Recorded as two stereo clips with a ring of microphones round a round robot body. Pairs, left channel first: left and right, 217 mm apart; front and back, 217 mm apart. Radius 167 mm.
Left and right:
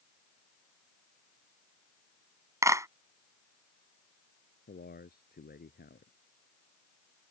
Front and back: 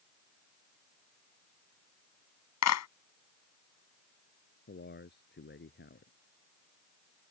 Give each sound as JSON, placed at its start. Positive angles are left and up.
{"t": 2.6, "sound": "a clap", "azimuth_deg": -15}
{"t": 4.7, "sound": "a man speaking", "azimuth_deg": 40}